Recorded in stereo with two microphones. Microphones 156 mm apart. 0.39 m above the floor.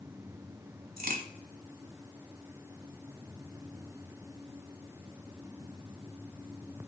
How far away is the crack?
About 0.9 m.